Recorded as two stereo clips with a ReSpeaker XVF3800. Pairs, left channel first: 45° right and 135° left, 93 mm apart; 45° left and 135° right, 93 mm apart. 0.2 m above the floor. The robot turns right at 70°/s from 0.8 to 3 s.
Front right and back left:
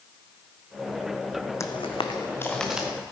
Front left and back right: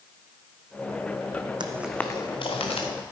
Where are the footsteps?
100° right, 0.6 m; by 2.9 s 60° left, 1.9 m.